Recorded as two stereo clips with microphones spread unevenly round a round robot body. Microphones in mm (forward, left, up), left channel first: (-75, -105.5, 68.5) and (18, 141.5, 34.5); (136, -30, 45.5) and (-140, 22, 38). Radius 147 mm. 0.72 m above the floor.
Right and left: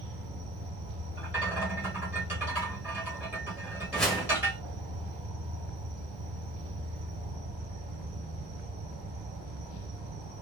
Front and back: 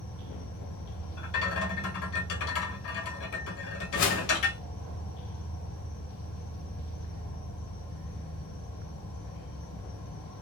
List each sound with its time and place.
0.0 s an insect: 35° left, 1.0 m
1.2 s a rattle: 20° right, 0.7 m
3.9 s a whoosh: 20° right, 0.7 m